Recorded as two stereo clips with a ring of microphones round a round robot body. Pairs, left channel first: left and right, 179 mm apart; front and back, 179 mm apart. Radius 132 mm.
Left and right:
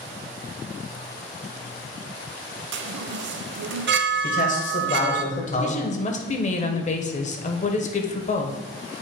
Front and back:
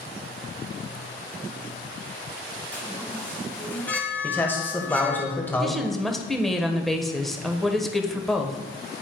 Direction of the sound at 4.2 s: 75° left.